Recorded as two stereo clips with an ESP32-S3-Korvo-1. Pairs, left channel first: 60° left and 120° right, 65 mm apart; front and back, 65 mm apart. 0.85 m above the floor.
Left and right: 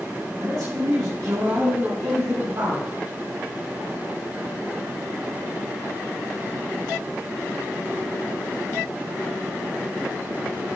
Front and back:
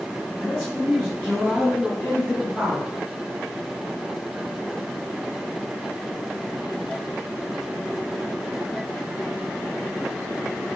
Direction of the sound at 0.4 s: 85° right.